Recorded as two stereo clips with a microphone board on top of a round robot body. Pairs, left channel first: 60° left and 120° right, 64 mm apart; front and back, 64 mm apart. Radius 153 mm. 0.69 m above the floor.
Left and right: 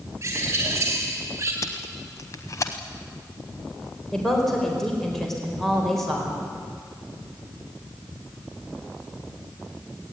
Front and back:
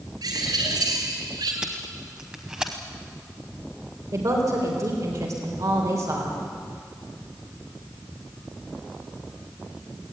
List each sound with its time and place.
0.2 s a bird: 175° right, 4.5 m
1.6 s tape being pulled: 100° left, 0.8 m
4.1 s a woman speaking: 145° left, 4 m